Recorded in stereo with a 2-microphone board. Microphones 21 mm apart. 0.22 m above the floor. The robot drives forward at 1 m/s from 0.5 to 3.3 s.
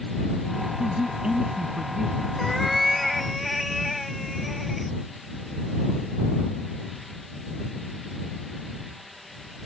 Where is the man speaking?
40° right (ahead or behind); by 2.3 s 25° right (ahead or behind).